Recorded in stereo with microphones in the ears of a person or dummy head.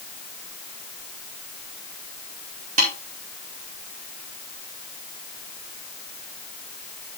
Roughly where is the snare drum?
Right.